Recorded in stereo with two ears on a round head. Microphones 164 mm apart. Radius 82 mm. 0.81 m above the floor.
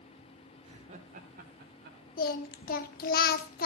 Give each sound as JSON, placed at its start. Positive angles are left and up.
{"t": 0.6, "sound": "laughter", "side_deg": -35, "distance_m": 3.0}
{"t": 2.2, "sound": "singing", "side_deg": 50, "distance_m": 1.0}